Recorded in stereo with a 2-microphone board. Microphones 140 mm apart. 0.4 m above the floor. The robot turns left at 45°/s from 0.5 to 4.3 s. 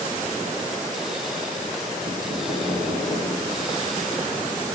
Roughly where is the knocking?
Behind right.